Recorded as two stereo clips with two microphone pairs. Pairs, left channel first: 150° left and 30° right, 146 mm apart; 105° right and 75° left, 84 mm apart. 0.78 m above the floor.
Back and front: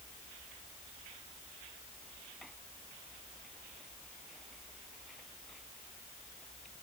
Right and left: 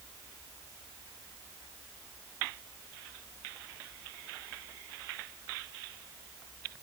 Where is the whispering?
No whispering in this recording.